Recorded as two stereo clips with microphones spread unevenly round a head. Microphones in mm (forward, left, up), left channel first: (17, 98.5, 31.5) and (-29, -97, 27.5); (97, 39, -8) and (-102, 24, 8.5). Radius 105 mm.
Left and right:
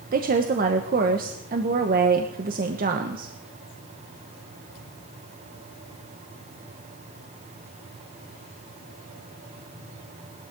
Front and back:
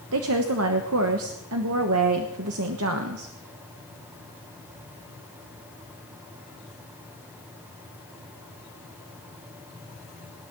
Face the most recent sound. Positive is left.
turn(degrees=-150)